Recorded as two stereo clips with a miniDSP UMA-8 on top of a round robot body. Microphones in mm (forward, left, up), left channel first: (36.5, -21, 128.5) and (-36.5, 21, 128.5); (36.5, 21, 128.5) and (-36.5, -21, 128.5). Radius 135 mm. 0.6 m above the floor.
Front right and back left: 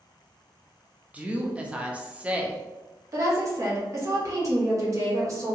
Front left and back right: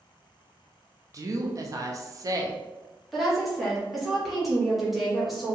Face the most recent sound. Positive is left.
turn(degrees=120)